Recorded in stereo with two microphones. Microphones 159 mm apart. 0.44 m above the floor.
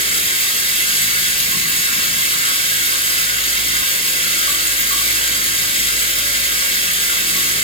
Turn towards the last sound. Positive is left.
turn(degrees=35)  # may be behind; listen again after turning